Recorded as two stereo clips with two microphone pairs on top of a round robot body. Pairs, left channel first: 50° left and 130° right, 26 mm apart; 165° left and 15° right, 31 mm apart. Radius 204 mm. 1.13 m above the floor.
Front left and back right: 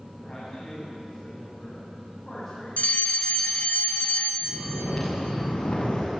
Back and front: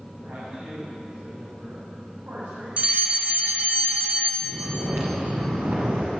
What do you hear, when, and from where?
0.2 s a man speaking: 20° right, 9 m
2.8 s a fire alarm: 30° left, 2.5 m
4.4 s snoring: 5° right, 6.5 m